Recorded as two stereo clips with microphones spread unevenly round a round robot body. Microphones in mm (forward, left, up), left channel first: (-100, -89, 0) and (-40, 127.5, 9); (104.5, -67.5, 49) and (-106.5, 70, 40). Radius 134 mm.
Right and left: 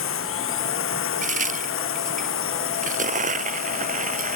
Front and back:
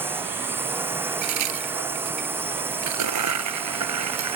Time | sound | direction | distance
0.0 | a drone | 130° right | ?
1.2 | a crack | 130° left | ?